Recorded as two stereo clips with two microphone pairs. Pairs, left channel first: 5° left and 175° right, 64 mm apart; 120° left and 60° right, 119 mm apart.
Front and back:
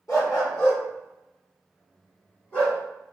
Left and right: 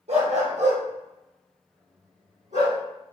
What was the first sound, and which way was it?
A dog barking, 35° right.